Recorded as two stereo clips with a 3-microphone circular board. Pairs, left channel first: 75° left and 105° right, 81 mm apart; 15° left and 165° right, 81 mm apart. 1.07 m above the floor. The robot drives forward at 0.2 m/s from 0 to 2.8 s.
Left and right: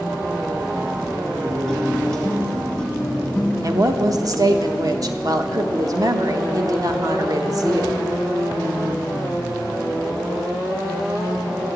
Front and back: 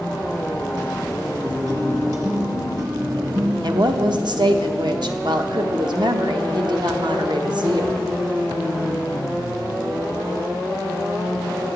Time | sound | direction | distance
1.4 | a guitar | 150° left | 1.3 m
3.6 | a woman speaking | 145° right | 0.8 m